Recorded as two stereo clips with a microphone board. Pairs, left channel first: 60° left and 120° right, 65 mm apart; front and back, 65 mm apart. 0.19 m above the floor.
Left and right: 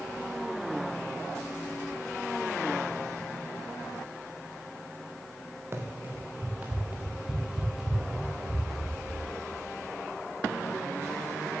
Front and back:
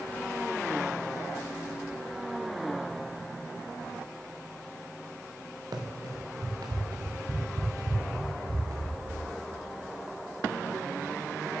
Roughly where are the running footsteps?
Behind.